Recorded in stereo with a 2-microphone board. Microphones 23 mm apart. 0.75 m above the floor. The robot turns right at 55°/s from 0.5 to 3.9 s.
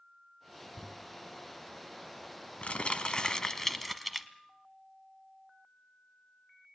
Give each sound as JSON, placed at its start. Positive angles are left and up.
{"t": 0.8, "sound": "crumpling", "side_deg": 5, "distance_m": 1.2}